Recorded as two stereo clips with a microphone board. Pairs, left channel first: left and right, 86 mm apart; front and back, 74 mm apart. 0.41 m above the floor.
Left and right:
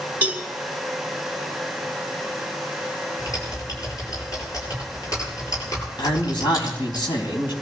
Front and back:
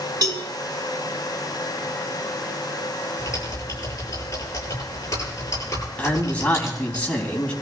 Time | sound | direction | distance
0.2 | a cowbell | 160° right | 2 m
3.2 | typing on a keyboard | 45° left | 9 m
6.0 | a man speaking | 70° left | 4 m